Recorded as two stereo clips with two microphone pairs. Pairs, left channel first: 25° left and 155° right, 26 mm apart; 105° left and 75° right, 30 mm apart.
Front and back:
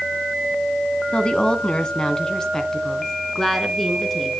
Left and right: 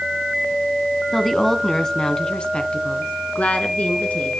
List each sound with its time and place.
1.1 s a woman speaking: 20° left, 1.9 m; by 4.3 s 105° left, 3 m